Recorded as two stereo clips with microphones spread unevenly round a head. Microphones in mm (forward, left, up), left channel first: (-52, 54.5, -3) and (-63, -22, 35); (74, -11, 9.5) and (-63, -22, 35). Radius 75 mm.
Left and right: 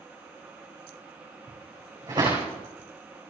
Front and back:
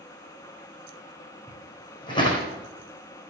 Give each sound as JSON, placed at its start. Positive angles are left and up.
{"t": 1.5, "sound": "footsteps", "azimuth_deg": -55, "distance_m": 4.5}